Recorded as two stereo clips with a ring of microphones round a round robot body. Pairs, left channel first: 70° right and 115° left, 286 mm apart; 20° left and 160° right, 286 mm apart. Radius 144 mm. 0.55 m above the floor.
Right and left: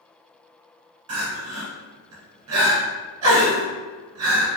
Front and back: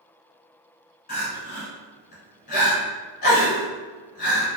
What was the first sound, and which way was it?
Crying, 85° left.